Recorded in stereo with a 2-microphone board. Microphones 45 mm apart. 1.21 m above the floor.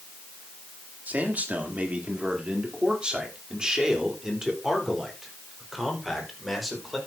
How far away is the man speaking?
About 3 m.